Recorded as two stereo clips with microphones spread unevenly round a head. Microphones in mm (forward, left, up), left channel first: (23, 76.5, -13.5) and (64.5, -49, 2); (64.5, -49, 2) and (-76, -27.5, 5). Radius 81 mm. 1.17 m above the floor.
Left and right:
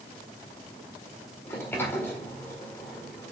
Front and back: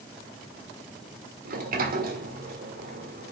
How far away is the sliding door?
About 1.8 m.